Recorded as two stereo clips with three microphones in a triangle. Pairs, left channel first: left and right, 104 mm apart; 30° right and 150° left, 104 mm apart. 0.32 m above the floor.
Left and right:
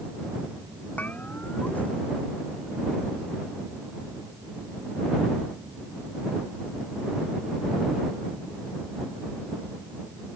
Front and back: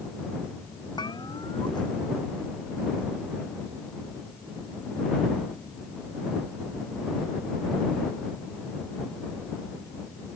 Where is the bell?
15° left.